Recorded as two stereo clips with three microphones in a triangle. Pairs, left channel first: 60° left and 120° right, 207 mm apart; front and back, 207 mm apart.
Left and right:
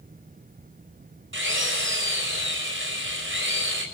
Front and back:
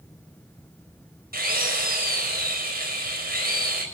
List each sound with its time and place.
1.3 s a drill: 140° right, 5.5 m